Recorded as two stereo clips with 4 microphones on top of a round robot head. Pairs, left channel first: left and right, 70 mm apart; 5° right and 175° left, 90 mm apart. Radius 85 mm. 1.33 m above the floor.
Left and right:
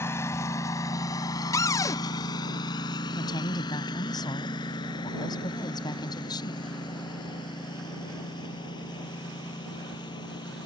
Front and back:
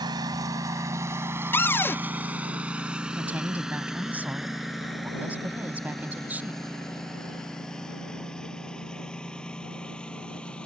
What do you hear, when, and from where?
0.0 s a lawn mower: 140° left; by 10.7 s 75° left
1.5 s a cupboard door: 60° left
3.1 s a woman speaking: 105° left